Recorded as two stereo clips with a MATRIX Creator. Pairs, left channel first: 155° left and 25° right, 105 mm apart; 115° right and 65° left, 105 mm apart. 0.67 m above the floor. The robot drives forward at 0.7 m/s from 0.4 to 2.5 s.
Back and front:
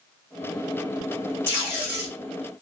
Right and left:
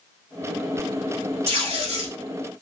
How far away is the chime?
No chime in this recording.